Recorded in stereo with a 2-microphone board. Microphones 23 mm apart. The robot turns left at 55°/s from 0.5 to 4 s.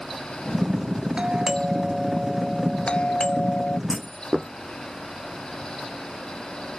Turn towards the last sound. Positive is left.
turn(degrees=-5)  # may be behind; listen again after turning